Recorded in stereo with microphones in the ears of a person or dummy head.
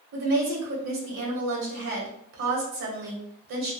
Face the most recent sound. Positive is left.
turn(degrees=-65)  # may be behind; listen again after turning